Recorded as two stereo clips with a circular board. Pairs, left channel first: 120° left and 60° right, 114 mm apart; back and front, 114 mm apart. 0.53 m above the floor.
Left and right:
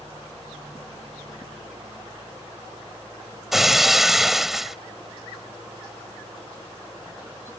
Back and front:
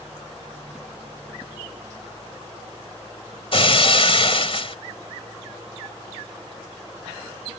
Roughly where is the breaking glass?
Behind right.